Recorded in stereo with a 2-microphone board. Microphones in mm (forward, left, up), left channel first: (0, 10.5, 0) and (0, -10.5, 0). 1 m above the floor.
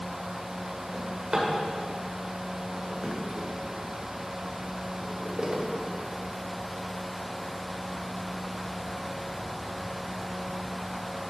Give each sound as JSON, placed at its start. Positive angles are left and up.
{"t": 0.9, "sound": "a drawer", "side_deg": -40, "distance_m": 1.7}